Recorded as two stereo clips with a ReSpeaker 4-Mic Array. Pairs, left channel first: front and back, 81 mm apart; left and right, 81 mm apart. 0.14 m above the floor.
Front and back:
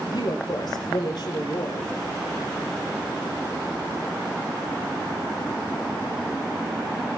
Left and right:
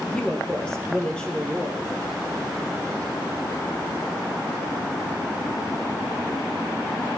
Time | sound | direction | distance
0.1 | a woman speaking | 15° left | 3 m